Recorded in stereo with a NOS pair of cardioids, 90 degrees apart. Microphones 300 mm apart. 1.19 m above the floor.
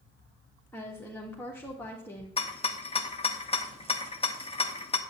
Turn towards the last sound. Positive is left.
turn(degrees=20)